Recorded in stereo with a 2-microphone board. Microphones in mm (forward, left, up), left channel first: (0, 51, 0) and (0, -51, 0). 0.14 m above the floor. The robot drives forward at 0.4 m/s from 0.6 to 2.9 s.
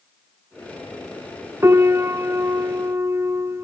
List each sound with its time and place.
1.6 s a piano: 25° right (ahead or behind), 0.8 m